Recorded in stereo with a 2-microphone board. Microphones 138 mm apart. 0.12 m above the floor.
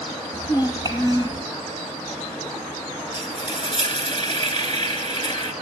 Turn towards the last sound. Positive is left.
turn(degrees=35)  # may be behind; listen again after turning